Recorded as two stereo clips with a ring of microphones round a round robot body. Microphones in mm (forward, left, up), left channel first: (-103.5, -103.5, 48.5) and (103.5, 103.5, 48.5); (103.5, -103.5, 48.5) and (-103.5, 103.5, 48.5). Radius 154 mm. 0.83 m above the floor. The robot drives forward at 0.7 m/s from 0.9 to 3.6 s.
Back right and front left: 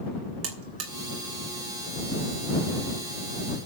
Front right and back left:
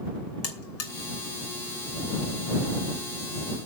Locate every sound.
0.4 s a buzzer: straight ahead, 3 m